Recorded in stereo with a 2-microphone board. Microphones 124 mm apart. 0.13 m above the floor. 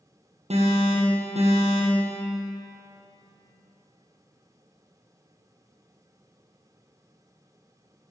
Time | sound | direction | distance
0.5 | an alarm | 60° right (ahead or behind) | 2.5 m